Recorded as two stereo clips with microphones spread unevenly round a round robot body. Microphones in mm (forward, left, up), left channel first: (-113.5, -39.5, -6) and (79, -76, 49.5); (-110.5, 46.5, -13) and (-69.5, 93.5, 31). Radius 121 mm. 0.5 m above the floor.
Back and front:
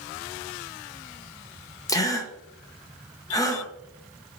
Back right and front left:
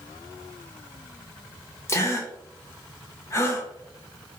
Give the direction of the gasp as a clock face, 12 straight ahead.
4 o'clock.